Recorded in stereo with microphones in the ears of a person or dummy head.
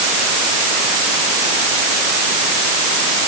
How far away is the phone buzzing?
I don't hear a phone buzzing.